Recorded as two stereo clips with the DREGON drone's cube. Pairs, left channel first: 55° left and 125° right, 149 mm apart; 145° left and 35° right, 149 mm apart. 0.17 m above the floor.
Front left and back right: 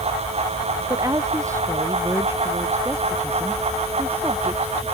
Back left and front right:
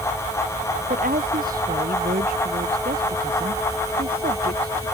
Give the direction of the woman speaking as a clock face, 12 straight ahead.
2 o'clock.